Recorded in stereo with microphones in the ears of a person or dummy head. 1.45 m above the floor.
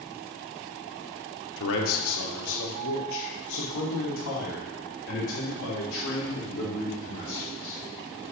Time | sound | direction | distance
1.6 | a man speaking | 70° left (ahead or behind) | 1.3 m